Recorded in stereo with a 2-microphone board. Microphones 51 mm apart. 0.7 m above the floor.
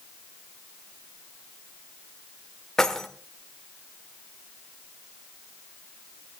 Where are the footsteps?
I don't hear footsteps.